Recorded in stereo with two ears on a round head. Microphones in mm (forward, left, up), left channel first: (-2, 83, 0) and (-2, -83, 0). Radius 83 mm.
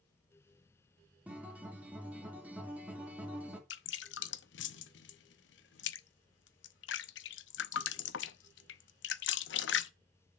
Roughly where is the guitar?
Centre.